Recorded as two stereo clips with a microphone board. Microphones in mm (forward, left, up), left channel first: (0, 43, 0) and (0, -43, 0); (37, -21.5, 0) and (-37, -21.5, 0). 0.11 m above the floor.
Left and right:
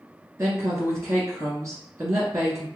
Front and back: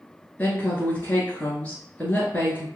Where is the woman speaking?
60° right, 1.5 m.